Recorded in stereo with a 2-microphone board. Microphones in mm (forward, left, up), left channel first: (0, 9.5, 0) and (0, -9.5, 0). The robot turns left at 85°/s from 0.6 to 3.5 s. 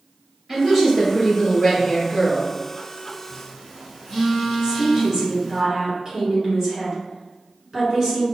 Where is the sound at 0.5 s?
165° right, 1.8 m; by 2.5 s 35° left, 1.8 m.